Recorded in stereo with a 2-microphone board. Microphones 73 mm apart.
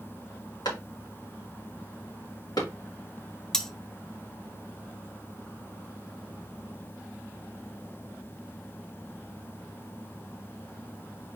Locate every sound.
0.7 s a clap: 70° left (ahead or behind), 2.5 m
3.5 s cutlery clinking: 10° left (ahead or behind), 0.5 m